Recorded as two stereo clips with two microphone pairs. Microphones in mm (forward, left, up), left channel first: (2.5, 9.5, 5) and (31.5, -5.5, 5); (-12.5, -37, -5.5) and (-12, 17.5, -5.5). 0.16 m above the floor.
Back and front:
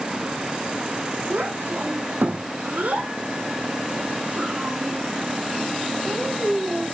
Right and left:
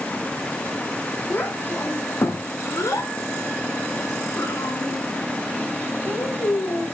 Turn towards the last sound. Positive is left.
turn(degrees=-85)